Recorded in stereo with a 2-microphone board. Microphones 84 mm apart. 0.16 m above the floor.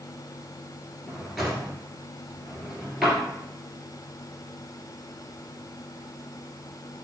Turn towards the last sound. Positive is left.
turn(degrees=0)  # may be behind; listen again after turning